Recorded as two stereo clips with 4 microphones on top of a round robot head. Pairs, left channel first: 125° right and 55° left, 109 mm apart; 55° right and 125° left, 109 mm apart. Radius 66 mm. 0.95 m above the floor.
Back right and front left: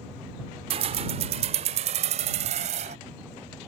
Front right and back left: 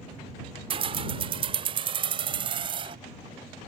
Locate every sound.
0.7 s keys jangling: 90° left; by 3.0 s 85° left